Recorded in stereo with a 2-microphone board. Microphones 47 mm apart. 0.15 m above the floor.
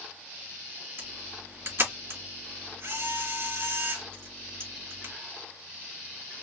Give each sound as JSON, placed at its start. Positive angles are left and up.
{"t": 1.0, "sound": "a camera shutter", "side_deg": -60, "distance_m": 2.5}